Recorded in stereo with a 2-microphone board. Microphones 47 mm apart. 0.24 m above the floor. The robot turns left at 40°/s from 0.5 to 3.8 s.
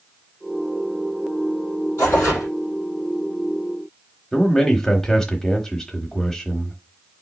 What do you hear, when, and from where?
2.0 s tearing paper: 80° left, 4 m; by 2.5 s 65° left (ahead or behind), 4 m
4.3 s a man speaking: 10° left (ahead or behind), 0.9 m